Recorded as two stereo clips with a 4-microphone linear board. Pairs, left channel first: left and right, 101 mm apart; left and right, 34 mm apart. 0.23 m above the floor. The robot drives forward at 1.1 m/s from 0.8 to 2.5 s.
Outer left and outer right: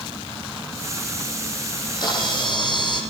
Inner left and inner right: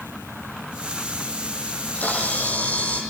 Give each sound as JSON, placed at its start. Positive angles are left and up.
{"t": 1.7, "sound": "a camera shutter", "side_deg": 45, "distance_m": 9.5}